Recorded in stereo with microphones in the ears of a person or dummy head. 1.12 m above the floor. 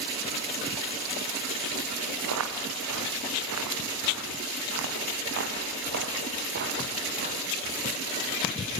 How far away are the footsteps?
About 4.5 m.